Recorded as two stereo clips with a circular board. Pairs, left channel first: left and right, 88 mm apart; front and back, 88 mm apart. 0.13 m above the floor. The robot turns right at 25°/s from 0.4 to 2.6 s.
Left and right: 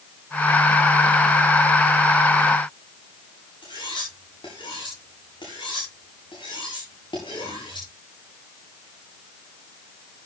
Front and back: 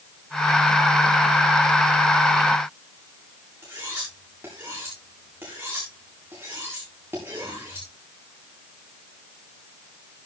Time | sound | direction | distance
3.6 | cutlery clinking | 115° left | 7.5 m